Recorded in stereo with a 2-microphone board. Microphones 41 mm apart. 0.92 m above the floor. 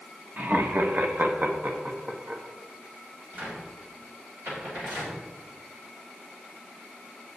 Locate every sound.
0.4 s laughter: 50° right (ahead or behind), 1.0 m; by 2.4 s 25° right (ahead or behind), 1.6 m
3.3 s a cupboard door: 50° right (ahead or behind), 3.5 m